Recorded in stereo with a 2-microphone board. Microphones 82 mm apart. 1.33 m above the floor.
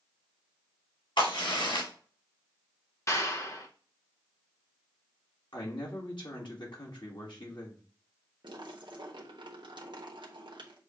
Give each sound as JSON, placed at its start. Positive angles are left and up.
{"t": 1.2, "sound": "a crack", "side_deg": 80, "distance_m": 3.0}
{"t": 3.1, "sound": "a clap", "side_deg": 40, "distance_m": 1.1}
{"t": 5.5, "sound": "a man speaking", "side_deg": 70, "distance_m": 2.0}
{"t": 8.4, "sound": "a splash", "side_deg": -70, "distance_m": 1.2}